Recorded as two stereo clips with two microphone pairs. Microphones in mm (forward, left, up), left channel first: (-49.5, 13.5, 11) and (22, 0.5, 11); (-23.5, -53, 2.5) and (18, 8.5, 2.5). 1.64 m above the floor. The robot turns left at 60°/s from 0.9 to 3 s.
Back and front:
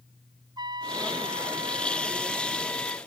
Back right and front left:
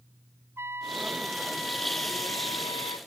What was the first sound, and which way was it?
A trumpet, straight ahead.